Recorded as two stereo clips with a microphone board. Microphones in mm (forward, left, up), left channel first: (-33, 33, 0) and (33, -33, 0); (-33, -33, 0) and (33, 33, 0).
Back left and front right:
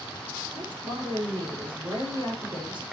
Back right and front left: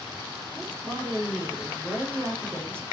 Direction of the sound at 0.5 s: 20° right.